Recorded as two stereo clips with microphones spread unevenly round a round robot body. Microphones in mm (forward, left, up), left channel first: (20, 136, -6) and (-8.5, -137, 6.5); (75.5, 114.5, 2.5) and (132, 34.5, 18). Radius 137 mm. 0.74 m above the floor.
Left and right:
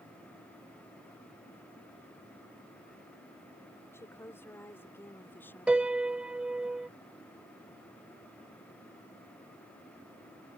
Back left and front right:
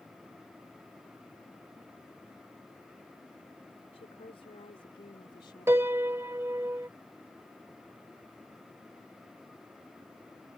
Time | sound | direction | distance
3.9 | a woman speaking | 165° left | ?
5.7 | a piano | 15° right | ?